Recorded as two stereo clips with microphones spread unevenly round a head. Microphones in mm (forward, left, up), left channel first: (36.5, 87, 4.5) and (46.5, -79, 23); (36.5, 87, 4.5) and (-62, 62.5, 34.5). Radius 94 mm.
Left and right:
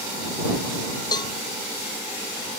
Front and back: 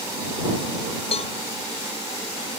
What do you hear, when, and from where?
1.1 s a cowbell: 30° left